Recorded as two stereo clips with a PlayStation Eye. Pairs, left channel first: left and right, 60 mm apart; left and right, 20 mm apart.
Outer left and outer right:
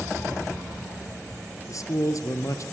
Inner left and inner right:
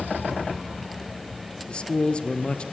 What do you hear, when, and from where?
1.7 s a man speaking: 60° left (ahead or behind), 2.5 m